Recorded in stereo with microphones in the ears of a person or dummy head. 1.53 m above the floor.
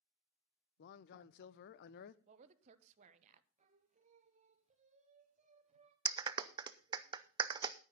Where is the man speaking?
60° left (ahead or behind), 0.7 m.